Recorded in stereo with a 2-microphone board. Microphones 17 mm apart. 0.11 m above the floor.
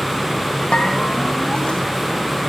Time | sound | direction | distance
0.7 | a bell | 75° left (ahead or behind) | 4 m